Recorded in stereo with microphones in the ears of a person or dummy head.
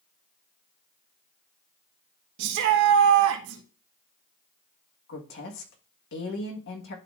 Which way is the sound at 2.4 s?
65° right (ahead or behind).